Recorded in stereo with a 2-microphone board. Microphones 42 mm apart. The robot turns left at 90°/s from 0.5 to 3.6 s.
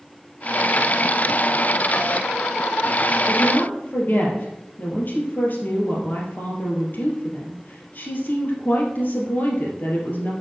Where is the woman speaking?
150° left, 2.5 m; by 10.3 s 120° left, 2.5 m.